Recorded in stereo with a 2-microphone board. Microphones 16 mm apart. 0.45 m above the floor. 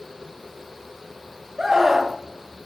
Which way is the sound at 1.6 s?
30° right (ahead or behind).